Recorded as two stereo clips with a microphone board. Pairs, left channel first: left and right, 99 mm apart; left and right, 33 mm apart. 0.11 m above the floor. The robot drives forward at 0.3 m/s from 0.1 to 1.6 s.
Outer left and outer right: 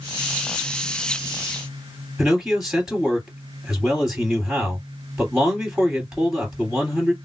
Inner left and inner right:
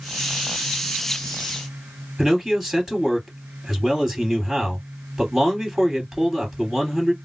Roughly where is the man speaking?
Centre.